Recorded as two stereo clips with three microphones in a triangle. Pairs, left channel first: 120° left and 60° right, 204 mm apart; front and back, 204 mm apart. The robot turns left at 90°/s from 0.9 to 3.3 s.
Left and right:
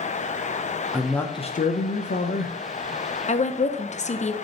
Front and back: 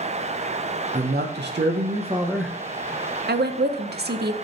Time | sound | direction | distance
0.9 | a man speaking | 140° right | 0.6 m
3.3 | a woman speaking | 170° left | 0.6 m